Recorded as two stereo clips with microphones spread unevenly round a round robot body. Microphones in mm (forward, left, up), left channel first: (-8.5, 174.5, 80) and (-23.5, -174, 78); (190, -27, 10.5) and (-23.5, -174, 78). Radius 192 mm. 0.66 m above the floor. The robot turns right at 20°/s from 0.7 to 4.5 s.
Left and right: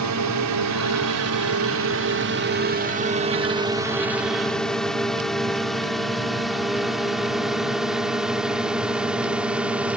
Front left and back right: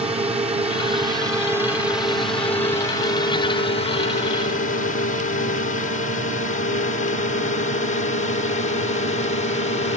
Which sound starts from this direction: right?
A drone, at 0.0 s.